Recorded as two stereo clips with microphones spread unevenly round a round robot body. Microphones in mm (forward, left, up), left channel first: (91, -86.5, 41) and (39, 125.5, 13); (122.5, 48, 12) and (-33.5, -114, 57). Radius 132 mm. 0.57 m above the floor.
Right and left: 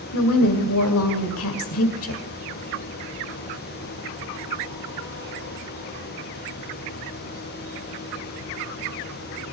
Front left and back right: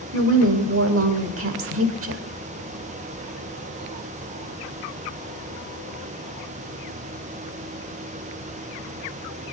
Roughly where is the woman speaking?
Right.